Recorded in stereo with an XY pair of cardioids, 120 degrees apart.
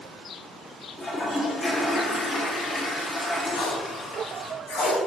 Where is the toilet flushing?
25° left, 1.9 m.